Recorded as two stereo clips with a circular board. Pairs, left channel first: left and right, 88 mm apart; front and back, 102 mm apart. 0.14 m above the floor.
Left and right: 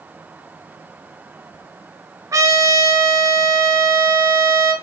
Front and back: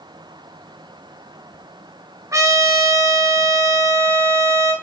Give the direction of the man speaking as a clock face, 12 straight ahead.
No man speaking in this recording.